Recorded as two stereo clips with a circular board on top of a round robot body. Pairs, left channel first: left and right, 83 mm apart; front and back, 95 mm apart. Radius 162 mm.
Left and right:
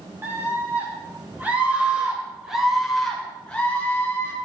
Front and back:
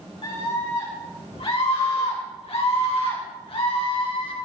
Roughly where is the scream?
Ahead right.